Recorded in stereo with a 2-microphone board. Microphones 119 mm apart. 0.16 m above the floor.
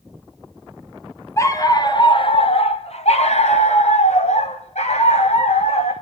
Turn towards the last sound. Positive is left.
turn(degrees=70)  # may be behind; listen again after turning